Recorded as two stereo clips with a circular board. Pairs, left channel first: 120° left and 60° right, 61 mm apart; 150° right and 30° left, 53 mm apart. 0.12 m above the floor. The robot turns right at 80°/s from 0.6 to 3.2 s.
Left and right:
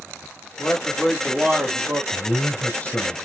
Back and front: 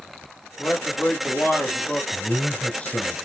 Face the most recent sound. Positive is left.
turn(degrees=-160)